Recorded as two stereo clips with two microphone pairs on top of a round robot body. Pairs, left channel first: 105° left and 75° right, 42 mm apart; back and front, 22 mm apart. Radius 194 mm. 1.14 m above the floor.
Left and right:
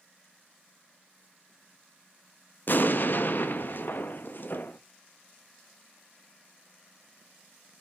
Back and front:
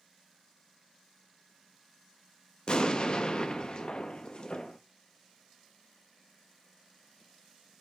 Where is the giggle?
No giggle in this recording.